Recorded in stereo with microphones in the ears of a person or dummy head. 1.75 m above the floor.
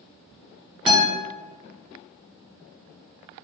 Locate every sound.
0.9 s a guitar: 10° right (ahead or behind), 0.5 m